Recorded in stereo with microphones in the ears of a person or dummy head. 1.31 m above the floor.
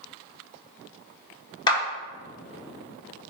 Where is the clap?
30° left (ahead or behind), 1.9 m.